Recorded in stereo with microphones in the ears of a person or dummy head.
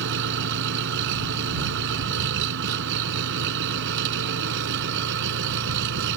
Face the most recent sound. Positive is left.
turn(degrees=-65)  # may be behind; listen again after turning